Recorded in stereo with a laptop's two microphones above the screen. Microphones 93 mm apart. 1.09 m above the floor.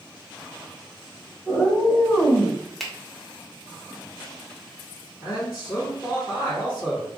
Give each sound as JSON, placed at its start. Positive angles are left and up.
{"t": 1.4, "sound": "a cat meowing", "side_deg": 45, "distance_m": 1.4}
{"t": 2.8, "sound": "a finger snap", "side_deg": 5, "distance_m": 0.5}
{"t": 5.2, "sound": "a man speaking", "side_deg": 65, "distance_m": 1.5}